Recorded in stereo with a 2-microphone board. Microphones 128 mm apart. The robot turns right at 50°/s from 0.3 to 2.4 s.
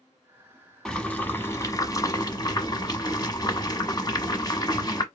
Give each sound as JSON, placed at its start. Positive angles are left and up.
{"t": 0.8, "sound": "boiling", "azimuth_deg": 10, "distance_m": 1.1}